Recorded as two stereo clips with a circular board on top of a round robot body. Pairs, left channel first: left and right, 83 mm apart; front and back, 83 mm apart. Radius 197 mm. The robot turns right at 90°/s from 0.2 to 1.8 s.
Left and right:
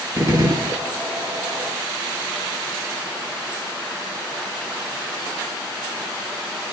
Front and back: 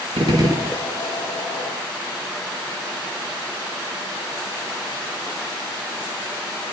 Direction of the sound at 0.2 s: 155° right.